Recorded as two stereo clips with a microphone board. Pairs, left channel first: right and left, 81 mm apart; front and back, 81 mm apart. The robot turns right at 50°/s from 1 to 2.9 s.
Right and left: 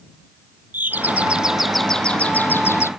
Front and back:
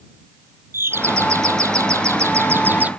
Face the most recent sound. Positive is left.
turn(degrees=-120)